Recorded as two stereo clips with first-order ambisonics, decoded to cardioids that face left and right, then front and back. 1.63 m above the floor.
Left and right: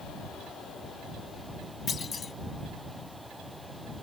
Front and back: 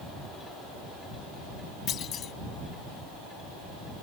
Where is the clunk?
30° left.